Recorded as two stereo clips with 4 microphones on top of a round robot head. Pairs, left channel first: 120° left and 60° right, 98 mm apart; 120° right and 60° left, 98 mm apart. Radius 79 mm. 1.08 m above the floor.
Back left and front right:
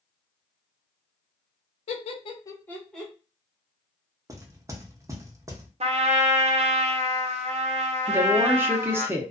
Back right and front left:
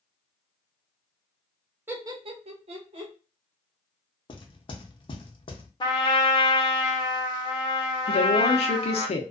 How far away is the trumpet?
About 0.7 m.